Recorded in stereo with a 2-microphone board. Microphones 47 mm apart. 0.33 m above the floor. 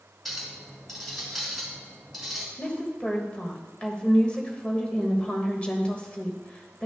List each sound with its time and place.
0.2 s a clink: 5° left (ahead or behind), 3 m
2.6 s a woman speaking: 25° left (ahead or behind), 1.4 m